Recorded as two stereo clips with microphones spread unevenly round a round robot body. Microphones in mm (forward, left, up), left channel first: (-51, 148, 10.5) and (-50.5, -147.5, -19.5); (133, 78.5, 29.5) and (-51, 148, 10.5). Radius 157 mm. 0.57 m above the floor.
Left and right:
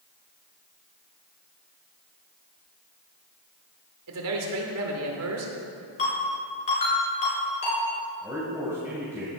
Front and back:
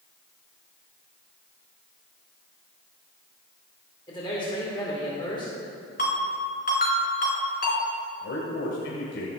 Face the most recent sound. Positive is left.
turn(degrees=-5)